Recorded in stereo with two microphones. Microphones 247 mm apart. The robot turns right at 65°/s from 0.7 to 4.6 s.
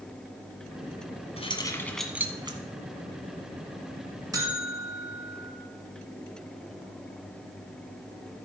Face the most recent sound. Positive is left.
turn(degrees=0)  # may be behind; listen again after turning